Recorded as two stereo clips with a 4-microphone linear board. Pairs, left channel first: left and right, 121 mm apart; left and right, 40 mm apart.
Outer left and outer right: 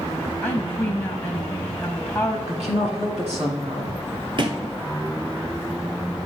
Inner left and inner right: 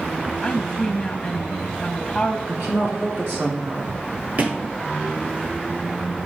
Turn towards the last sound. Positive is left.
turn(degrees=-45)  # may be behind; listen again after turning